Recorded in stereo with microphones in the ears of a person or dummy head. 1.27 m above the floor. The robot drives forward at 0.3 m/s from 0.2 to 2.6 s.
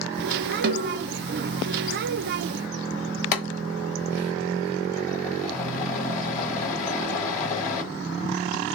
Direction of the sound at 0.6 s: 55° right (ahead or behind).